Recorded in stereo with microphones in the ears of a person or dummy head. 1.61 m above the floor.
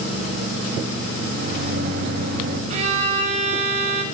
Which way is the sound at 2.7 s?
40° right (ahead or behind).